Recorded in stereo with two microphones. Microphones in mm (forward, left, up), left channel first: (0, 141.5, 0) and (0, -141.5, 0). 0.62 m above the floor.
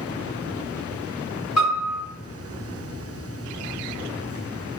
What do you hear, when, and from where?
1.6 s a piano: 60° left (ahead or behind), 2.0 m